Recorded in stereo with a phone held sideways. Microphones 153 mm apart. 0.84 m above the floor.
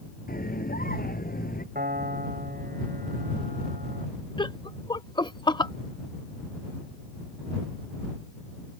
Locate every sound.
0.3 s a scream: 75° left (ahead or behind)
1.8 s a piano: 75° right (ahead or behind)
4.4 s laughter: 30° left (ahead or behind)